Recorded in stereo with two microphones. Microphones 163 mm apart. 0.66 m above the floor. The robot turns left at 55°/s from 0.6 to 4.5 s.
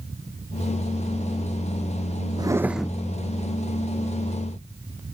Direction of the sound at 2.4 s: 155° right.